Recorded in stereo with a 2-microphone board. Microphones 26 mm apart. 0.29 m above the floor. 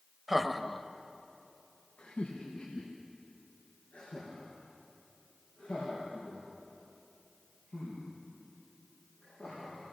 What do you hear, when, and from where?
0.3 s laughter: 10° right (ahead or behind), 0.9 m; by 9.8 s 60° left (ahead or behind), 10 m